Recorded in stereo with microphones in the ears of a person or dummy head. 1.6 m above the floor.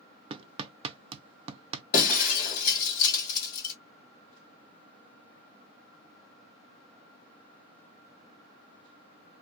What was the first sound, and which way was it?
Hammering, 30° right (ahead or behind).